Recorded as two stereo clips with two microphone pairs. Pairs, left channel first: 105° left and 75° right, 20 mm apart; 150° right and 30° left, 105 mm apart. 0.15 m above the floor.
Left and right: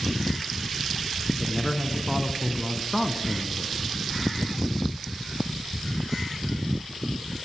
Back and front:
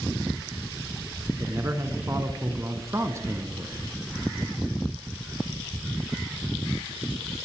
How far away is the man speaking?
About 1.1 m.